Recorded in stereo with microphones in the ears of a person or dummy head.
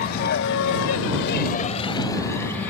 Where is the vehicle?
50° left (ahead or behind); by 2.7 s 5° left (ahead or behind).